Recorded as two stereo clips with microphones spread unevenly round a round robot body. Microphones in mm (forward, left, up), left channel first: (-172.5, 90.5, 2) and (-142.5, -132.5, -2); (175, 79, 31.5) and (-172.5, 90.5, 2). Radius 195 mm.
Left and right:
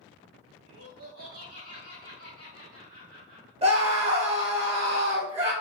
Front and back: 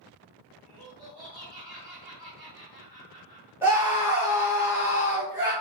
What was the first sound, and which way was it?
Laughter, 90° right.